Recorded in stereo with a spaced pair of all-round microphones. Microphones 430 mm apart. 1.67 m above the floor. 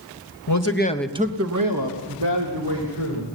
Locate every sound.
0.5 s a man speaking: 45° left (ahead or behind), 1.2 m; by 3.2 s 75° right (ahead or behind), 3 m